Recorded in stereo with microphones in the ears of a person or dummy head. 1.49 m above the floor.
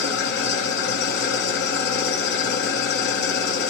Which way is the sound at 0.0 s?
65° left (ahead or behind).